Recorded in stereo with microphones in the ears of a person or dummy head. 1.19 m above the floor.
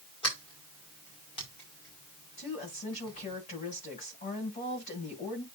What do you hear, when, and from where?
0.2 s a sliding door: 30° left (ahead or behind), 5 m
2.4 s a woman speaking: 40° left (ahead or behind), 7 m